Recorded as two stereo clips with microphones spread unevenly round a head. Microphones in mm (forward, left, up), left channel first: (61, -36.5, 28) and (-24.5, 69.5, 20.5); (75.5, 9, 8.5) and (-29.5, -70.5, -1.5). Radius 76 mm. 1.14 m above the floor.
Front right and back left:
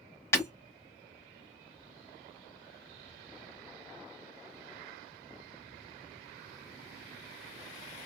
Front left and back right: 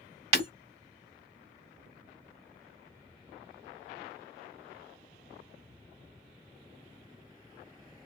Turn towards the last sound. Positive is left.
turn(degrees=-120)